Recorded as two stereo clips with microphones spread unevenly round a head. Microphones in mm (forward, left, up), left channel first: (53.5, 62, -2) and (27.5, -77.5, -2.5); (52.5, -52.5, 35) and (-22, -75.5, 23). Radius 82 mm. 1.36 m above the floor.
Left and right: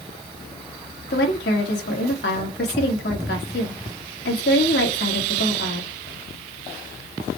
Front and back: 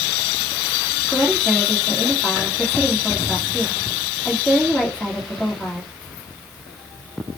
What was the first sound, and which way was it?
A woman speaking, 105° left.